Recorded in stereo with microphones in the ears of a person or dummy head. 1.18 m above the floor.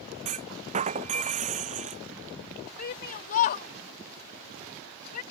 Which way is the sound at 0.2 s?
40° right (ahead or behind).